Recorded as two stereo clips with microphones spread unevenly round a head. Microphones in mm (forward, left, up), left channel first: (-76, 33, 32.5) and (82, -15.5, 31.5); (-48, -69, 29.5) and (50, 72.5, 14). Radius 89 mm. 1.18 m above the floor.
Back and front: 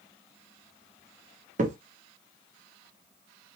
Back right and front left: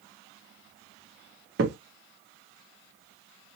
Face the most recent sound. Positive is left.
turn(degrees=30)